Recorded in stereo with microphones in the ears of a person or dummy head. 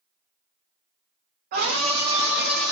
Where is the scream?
50° right (ahead or behind), 0.6 m; by 2.7 s 5° left (ahead or behind), 0.9 m.